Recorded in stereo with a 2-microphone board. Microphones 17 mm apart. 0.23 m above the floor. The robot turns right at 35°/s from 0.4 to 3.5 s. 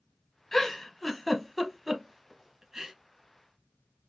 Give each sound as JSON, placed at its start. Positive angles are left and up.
{"t": 0.5, "sound": "a giggle", "side_deg": 25, "distance_m": 0.6}